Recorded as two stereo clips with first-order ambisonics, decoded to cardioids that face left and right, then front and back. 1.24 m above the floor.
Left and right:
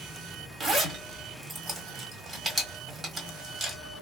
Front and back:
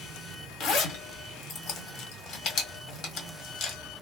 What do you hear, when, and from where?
0.6 s a zipper: 20° right, 1.3 m